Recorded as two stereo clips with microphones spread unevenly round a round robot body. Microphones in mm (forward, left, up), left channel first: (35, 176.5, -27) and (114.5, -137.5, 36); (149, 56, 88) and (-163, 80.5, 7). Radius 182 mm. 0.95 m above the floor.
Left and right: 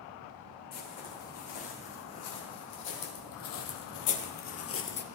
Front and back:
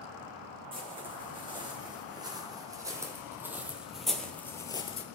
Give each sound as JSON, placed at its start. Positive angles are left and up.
{"t": 0.7, "sound": "footsteps", "azimuth_deg": 100, "distance_m": 4.5}